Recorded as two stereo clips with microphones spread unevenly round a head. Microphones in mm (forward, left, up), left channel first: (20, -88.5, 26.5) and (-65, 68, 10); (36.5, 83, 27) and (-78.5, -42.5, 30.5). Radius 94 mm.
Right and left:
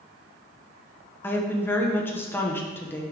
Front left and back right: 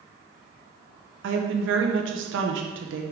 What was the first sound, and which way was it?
A woman speaking, 140° right.